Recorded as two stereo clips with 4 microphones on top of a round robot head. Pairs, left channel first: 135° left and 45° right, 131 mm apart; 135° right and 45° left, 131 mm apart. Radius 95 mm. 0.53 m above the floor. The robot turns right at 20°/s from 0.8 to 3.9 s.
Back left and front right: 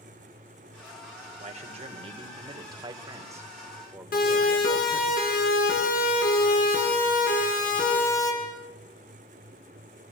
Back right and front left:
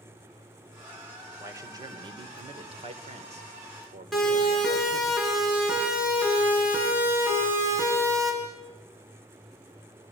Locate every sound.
1.4 s a man speaking: 20° right, 2.5 m; by 5.1 s 30° left, 2.5 m
4.1 s a siren: 140° left, 7.5 m; by 8.3 s 115° left, 6.5 m